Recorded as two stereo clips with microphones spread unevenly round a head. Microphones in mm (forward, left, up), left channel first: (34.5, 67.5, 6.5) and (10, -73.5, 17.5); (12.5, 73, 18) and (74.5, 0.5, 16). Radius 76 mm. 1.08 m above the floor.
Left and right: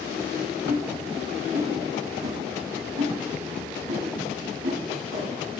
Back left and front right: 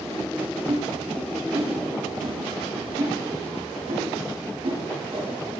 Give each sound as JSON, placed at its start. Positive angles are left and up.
{"t": 0.7, "sound": "a whoosh", "azimuth_deg": -110, "distance_m": 5.0}